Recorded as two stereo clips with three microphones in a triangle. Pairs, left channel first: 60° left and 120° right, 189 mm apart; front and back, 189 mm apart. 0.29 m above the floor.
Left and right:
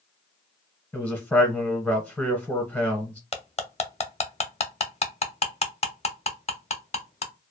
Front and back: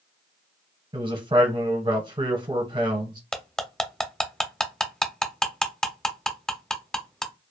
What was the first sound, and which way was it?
A man speaking, 135° left.